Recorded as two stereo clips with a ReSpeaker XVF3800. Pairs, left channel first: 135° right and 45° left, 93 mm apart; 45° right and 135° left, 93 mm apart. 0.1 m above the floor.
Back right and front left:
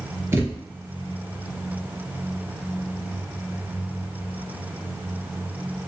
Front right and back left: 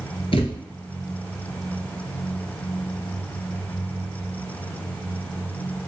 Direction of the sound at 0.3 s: 15° right.